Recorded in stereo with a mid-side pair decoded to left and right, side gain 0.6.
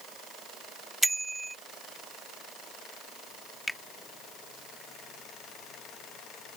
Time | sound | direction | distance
1.0 | a bicycle bell | 10° right | ?
3.7 | a finger snap | 10° left | ?